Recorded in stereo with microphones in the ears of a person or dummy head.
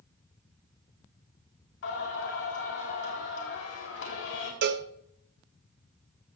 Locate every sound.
1.8 s singing: 70° left (ahead or behind), 3.5 m
4.6 s a cowbell: 65° right (ahead or behind), 0.7 m